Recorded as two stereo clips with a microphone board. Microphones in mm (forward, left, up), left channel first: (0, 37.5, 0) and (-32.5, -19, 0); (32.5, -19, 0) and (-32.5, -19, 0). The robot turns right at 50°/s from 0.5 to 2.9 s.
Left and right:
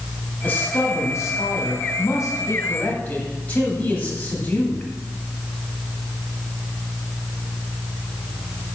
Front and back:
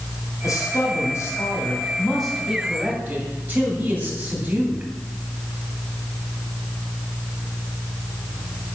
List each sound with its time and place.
0.4 s a man speaking: 5° left, 2.5 m; by 4.9 s 125° left, 2.5 m